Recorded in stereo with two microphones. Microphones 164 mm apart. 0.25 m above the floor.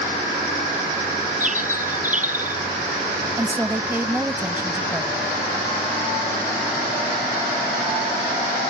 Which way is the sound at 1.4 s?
50° right (ahead or behind).